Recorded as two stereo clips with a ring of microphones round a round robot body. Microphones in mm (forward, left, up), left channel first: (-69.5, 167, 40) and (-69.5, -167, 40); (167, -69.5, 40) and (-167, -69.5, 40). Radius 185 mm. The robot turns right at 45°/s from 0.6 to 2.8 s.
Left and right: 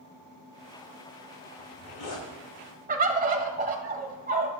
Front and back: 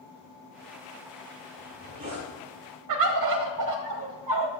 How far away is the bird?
About 1.4 m.